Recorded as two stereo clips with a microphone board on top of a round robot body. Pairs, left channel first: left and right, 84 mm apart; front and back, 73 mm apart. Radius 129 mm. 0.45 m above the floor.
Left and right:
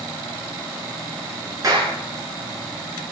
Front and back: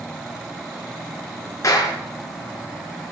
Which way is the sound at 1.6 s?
45° right.